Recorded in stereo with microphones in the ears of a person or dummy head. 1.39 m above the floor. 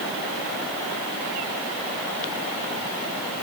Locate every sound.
Only background noise.